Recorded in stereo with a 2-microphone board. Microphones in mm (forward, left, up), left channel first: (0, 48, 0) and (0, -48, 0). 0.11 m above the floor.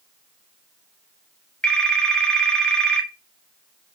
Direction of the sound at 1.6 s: 10° left (ahead or behind).